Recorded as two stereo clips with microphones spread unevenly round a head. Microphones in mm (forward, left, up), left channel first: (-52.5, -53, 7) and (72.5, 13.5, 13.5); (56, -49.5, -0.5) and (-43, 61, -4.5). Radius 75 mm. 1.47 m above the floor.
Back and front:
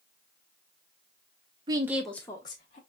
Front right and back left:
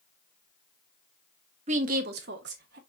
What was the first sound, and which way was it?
A woman speaking, 85° left.